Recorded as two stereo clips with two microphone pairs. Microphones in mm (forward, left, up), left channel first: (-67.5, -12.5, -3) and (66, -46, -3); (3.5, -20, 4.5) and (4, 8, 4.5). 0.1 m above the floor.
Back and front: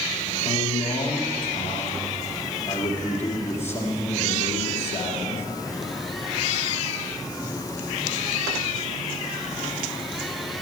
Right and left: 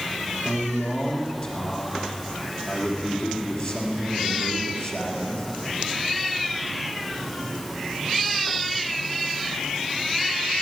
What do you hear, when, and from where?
0.5 s a man speaking: 125° right, 3 m